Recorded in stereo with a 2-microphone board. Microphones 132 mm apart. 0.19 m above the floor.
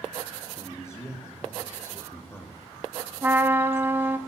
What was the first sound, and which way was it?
A man speaking, 20° left (ahead or behind).